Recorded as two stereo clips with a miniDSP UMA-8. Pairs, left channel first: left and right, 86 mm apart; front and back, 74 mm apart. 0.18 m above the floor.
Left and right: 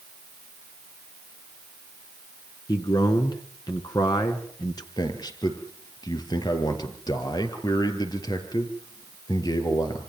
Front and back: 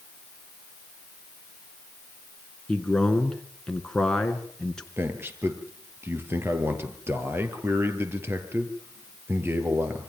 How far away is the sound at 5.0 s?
About 4.5 m.